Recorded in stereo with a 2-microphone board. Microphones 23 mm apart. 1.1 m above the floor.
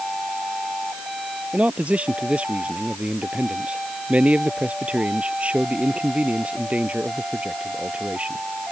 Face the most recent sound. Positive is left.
turn(degrees=-60)  # may be behind; listen again after turning